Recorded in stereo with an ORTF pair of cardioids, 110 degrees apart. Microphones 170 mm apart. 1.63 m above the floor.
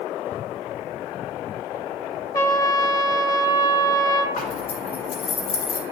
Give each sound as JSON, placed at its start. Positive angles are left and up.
{"t": 2.3, "sound": "a trumpet", "azimuth_deg": 20, "distance_m": 0.7}
{"t": 4.4, "sound": "a zipper", "azimuth_deg": 60, "distance_m": 2.0}